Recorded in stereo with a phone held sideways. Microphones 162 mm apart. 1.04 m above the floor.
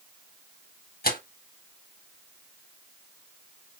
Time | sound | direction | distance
1.0 | tearing paper | 70° left (ahead or behind) | 1.3 m